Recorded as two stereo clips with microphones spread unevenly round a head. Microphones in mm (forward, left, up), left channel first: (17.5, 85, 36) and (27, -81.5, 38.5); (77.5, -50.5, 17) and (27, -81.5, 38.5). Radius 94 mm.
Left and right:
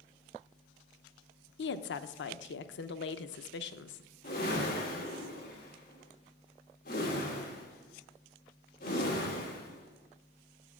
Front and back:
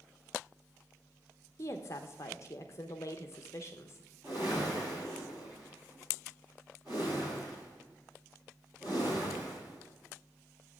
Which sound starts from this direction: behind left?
A whoosh, at 4.2 s.